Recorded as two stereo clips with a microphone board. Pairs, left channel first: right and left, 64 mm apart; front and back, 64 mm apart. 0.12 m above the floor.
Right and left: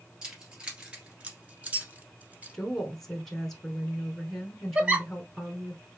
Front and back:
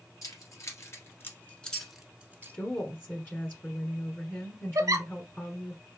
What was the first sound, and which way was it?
Keys jangling, 15° left.